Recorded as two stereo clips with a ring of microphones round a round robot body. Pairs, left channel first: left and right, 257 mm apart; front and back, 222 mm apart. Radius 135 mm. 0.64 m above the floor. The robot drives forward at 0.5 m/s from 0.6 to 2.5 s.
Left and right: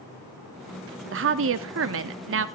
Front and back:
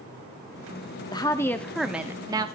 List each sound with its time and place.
1.1 s a woman speaking: 70° right, 1.1 m; by 2.5 s 110° right, 1.1 m